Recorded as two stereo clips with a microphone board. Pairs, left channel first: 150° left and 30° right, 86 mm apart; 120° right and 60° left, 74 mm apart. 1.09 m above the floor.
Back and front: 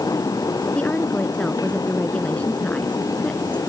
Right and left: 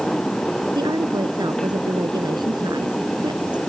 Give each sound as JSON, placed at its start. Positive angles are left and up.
{"t": 0.8, "sound": "a woman speaking", "azimuth_deg": 75}